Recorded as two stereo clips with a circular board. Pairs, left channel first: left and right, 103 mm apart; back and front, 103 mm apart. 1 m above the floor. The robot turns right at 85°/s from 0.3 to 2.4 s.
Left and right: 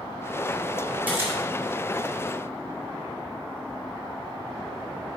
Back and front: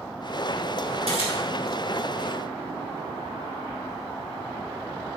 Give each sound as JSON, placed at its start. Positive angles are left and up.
{"t": 1.1, "sound": "a camera shutter", "azimuth_deg": -165, "distance_m": 4.0}